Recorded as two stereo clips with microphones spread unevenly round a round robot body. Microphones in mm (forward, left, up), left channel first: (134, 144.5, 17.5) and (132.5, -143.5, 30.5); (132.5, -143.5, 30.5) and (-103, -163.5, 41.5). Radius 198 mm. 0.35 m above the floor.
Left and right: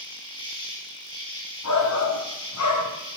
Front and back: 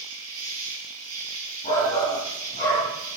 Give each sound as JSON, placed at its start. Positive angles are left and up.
{"t": 0.0, "sound": "an insect", "azimuth_deg": 165, "distance_m": 5.5}
{"t": 1.6, "sound": "a shout", "azimuth_deg": 70, "distance_m": 3.0}